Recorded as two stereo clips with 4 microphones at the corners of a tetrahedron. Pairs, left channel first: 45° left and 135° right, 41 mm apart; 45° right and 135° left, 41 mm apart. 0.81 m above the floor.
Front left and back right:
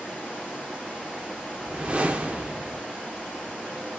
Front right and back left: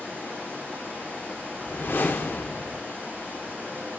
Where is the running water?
75° right, 7 m.